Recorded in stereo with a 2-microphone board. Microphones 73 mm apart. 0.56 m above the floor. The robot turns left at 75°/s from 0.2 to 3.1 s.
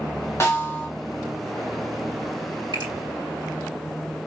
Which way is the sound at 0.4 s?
70° left.